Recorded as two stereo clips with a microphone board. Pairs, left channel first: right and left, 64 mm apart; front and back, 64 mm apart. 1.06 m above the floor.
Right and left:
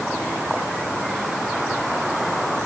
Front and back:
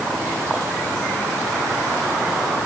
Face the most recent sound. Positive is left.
No sound to turn to.